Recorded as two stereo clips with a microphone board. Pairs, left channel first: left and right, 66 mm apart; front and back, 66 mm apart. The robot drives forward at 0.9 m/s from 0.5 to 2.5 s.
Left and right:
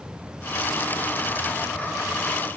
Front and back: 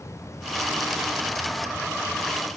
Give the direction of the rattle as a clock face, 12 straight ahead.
I don't hear a rattle.